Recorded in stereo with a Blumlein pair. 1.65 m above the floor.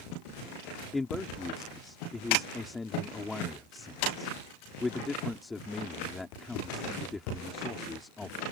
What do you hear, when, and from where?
0.9 s a man speaking: 10° left